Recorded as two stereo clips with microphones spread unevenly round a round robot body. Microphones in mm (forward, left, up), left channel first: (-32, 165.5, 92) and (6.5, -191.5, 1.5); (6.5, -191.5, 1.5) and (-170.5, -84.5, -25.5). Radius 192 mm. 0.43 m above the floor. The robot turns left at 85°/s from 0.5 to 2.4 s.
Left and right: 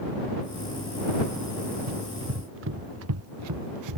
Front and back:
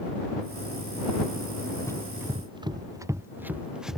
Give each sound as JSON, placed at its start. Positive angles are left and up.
{"t": 1.9, "sound": "running footsteps", "azimuth_deg": -105}